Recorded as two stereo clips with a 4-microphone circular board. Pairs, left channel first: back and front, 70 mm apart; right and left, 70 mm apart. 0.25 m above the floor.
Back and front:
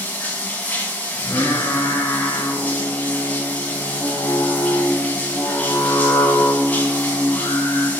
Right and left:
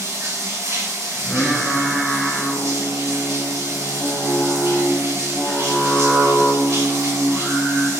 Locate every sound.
0.0 s running water: 115° left, 1.7 m
1.1 s singing: 175° left, 2 m